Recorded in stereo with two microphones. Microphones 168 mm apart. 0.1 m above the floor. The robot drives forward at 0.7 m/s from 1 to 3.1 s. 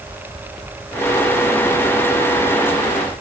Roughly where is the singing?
I don't hear singing.